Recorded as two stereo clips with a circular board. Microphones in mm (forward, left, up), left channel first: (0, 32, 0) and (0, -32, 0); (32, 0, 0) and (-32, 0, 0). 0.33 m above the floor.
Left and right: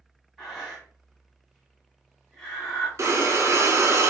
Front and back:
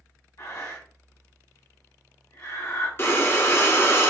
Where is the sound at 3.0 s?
50° right, 0.8 m.